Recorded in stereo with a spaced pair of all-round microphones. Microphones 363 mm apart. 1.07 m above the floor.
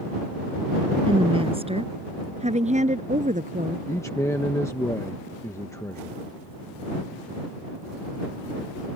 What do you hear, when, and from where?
1.1 s a woman speaking: 10° right (ahead or behind); by 3.8 s 20° right (ahead or behind)
3.9 s a man speaking: 5° left (ahead or behind)